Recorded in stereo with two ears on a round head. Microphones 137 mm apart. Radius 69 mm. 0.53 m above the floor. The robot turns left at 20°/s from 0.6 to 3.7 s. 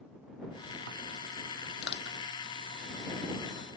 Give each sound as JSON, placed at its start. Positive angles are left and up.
{"t": 1.8, "sound": "crushing", "side_deg": 80}